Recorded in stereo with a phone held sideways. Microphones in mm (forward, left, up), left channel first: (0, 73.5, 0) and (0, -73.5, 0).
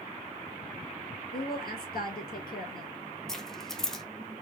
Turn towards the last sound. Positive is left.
turn(degrees=5)  # may be behind; listen again after turning